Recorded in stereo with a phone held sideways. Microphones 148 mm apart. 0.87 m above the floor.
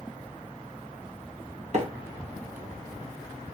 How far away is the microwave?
About 1.0 m.